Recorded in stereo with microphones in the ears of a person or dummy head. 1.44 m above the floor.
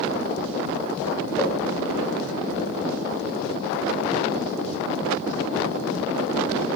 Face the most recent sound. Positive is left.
turn(degrees=15)  # may be behind; listen again after turning